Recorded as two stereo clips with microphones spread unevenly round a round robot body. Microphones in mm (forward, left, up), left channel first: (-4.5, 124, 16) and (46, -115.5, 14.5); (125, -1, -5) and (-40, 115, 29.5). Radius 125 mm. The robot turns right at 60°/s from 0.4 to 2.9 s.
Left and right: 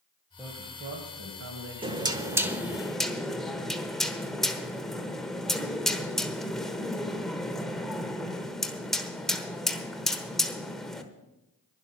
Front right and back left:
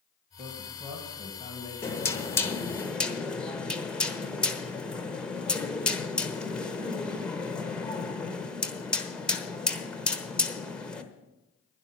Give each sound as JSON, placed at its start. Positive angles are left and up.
{"t": 0.4, "sound": "a man speaking", "azimuth_deg": -160, "distance_m": 1.9}
{"t": 1.8, "sound": "knocking", "azimuth_deg": -50, "distance_m": 1.1}